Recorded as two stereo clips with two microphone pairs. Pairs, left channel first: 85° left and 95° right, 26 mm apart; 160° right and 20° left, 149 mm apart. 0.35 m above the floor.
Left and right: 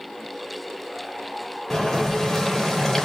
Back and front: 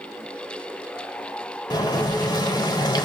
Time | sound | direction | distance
1.7 | boiling | 150° left | 1.3 m